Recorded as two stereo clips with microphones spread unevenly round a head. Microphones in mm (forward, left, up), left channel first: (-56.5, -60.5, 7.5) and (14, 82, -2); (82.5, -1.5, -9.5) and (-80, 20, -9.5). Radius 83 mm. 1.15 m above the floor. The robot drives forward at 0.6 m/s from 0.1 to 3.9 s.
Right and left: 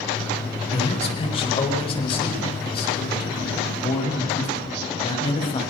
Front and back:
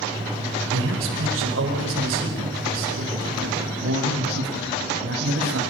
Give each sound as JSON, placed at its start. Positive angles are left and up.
{"t": 0.7, "sound": "a man speaking", "azimuth_deg": -170, "distance_m": 5.0}